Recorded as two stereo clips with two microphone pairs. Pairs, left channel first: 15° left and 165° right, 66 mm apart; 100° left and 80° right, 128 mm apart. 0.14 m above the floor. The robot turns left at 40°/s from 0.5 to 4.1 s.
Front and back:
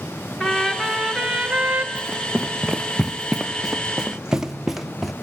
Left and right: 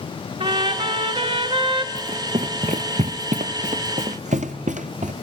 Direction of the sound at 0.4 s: 60° right.